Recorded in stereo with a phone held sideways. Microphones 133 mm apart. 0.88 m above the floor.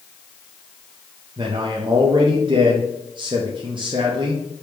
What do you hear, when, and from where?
1.4 s a man speaking: 40° right (ahead or behind), 0.6 m